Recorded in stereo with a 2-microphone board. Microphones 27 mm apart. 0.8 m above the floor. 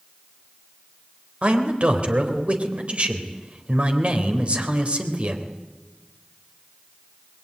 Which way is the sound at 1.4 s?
50° right (ahead or behind).